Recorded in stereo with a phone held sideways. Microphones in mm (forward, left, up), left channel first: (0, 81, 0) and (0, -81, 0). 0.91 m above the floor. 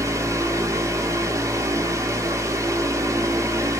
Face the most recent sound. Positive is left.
turn(degrees=-20)  # may be behind; listen again after turning